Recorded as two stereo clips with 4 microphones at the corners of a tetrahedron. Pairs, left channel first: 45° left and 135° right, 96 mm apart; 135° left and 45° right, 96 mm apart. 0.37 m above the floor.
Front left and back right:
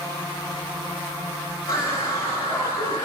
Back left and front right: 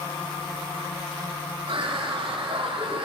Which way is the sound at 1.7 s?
5° right.